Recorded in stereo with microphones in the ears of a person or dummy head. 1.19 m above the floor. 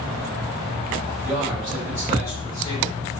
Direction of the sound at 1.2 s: Centre (ahead or behind).